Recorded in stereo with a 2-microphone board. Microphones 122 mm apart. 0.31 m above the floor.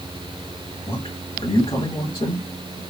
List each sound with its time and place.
0.9 s a man speaking: 45° left (ahead or behind), 1.9 m